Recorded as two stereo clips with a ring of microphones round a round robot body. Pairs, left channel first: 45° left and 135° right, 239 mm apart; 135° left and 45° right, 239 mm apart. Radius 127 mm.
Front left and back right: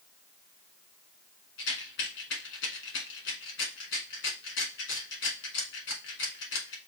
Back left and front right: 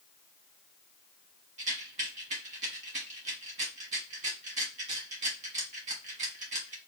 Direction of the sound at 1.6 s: 15° left.